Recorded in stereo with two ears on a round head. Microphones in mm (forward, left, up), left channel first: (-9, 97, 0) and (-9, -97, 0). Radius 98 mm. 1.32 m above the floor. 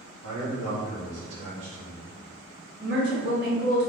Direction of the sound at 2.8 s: 50° right (ahead or behind).